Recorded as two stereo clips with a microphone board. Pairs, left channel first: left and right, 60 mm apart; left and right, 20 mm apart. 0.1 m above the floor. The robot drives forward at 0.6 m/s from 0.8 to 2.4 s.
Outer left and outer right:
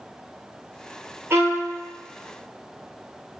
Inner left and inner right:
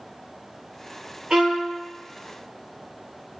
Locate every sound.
1.3 s a violin: 45° right (ahead or behind), 0.8 m; by 1.7 s 40° right (ahead or behind), 1.0 m